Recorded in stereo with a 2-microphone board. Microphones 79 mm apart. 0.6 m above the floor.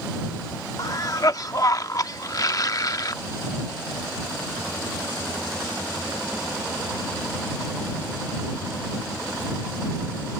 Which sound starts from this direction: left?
A cough, at 0.8 s.